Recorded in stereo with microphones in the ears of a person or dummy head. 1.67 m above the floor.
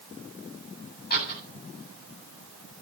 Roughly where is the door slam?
Left.